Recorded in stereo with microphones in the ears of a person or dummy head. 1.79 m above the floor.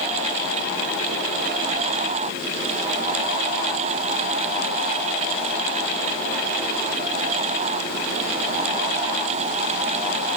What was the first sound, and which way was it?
Only background noise.